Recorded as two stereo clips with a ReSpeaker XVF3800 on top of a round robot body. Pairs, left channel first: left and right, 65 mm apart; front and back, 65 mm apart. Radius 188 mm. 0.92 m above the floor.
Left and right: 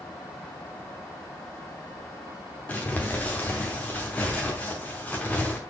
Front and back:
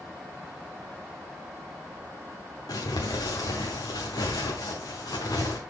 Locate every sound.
2.7 s crumpling: 25° left, 0.7 m